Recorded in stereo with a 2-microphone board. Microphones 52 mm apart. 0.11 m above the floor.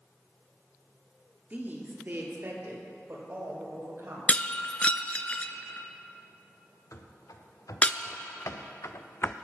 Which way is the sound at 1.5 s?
35° right (ahead or behind).